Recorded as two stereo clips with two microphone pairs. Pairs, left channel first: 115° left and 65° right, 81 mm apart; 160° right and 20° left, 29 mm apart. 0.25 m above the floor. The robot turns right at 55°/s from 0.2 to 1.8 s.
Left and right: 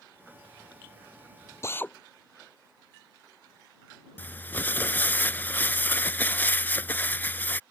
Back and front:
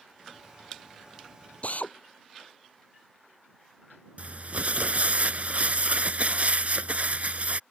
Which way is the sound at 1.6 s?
170° left.